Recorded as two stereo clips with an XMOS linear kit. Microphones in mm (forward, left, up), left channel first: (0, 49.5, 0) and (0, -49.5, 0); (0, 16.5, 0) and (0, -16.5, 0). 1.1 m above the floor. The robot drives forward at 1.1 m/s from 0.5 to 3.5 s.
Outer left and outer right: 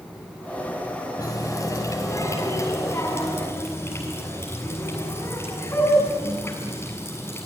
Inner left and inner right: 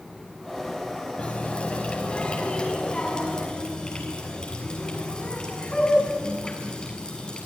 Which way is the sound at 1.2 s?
35° left (ahead or behind).